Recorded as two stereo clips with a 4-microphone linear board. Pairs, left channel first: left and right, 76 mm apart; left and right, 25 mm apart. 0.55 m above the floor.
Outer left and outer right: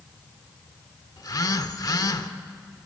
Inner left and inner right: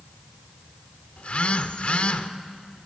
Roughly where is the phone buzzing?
Left.